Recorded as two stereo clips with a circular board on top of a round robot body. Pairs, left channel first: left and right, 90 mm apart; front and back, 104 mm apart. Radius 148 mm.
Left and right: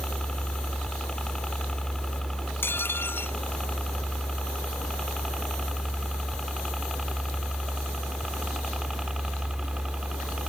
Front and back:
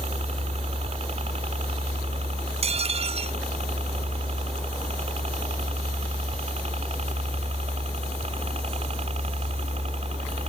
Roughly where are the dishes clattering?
Behind.